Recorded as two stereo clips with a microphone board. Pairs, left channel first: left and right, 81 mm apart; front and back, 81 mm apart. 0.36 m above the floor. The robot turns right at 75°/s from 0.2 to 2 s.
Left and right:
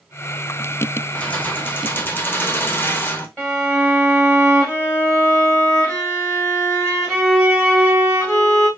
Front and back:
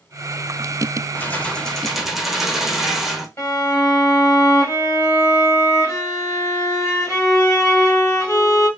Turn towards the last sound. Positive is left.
turn(degrees=35)